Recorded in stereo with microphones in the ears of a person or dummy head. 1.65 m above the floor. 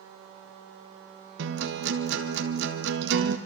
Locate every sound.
1.4 s a guitar: 60° right (ahead or behind), 1.6 m